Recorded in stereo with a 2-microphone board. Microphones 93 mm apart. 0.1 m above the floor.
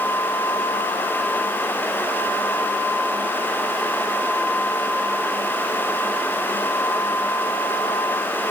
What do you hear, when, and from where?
Only background noise.